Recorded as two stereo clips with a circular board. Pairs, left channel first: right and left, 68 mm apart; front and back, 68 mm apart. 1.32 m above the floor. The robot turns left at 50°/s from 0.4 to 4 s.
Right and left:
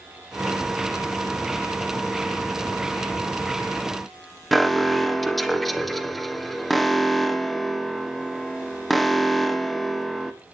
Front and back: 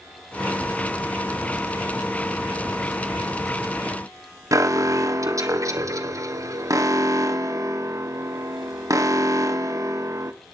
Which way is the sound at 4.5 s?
Straight behind.